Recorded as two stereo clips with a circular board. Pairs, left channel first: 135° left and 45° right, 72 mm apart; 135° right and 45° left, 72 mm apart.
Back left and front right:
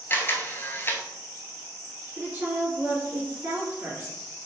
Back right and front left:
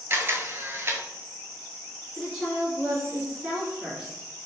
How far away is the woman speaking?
About 1.9 m.